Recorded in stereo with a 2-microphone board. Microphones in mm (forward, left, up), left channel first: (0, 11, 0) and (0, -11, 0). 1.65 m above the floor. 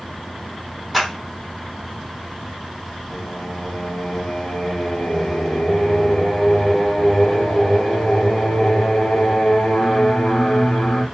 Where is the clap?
5° right (ahead or behind), 2.5 m.